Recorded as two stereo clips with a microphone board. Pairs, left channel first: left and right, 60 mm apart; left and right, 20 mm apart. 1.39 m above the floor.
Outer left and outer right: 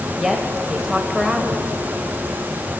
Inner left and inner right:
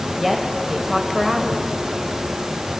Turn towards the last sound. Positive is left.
turn(degrees=-5)  # may be behind; listen again after turning